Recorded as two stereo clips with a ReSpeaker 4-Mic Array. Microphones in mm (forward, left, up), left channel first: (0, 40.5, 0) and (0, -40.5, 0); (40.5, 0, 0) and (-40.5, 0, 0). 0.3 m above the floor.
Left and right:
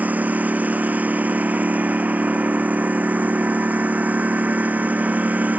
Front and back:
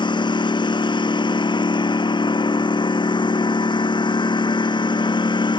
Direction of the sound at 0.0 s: 20° right.